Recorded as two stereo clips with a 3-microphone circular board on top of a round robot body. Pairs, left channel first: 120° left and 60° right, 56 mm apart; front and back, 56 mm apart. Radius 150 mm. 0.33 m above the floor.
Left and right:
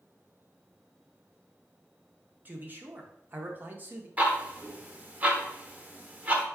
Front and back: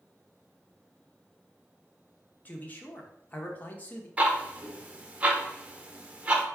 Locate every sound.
2.5 s a man speaking: 35° right, 0.9 m
4.2 s ticking: 115° right, 0.9 m